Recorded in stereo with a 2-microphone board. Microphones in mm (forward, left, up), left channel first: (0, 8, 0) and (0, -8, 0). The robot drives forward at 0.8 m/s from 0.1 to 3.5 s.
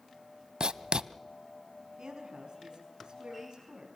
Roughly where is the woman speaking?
Right.